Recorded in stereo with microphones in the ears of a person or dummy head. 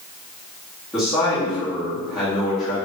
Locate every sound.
0.9 s a man speaking: 5° right (ahead or behind), 1.6 m